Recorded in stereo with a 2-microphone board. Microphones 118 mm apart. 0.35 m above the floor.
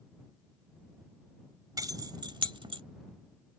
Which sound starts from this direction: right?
Keys jangling, at 1.8 s.